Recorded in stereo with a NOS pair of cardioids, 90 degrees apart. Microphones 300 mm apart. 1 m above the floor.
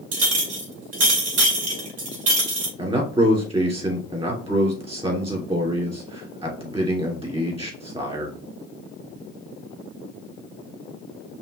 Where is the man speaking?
20° right, 2.5 m.